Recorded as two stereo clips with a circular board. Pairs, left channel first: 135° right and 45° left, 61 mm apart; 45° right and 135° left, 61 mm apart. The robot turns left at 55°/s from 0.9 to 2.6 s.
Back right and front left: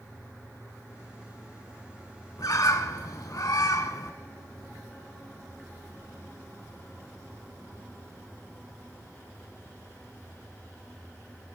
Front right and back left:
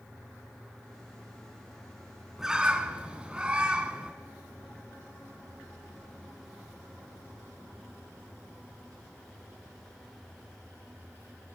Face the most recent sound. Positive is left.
turn(degrees=-155)